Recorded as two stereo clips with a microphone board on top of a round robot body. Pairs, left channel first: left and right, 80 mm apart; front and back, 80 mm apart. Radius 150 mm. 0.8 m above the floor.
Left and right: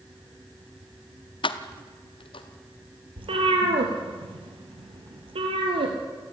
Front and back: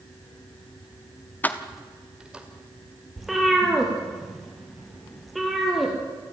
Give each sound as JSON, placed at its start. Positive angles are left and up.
{"t": 1.4, "sound": "keys jangling", "azimuth_deg": 70, "distance_m": 1.0}
{"t": 3.2, "sound": "a cat meowing", "azimuth_deg": -90, "distance_m": 3.0}